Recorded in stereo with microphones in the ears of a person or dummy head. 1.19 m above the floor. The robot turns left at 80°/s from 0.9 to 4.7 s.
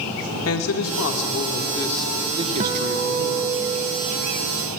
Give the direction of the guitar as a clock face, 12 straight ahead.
1 o'clock.